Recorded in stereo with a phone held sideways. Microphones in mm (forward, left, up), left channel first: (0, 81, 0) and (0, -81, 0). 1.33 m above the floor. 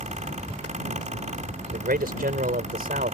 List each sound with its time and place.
0.0 s a fan: 50° right (ahead or behind)
1.7 s a man speaking: 70° right (ahead or behind)